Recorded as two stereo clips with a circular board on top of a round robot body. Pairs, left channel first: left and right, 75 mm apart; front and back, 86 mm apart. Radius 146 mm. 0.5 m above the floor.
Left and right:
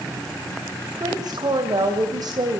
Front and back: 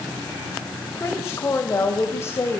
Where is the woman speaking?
60° right, 3 m.